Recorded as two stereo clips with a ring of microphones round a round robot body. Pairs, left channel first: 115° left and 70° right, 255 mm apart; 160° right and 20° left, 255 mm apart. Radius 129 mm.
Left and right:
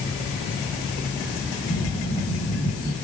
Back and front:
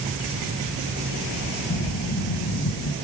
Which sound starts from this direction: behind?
Breathing, at 1.7 s.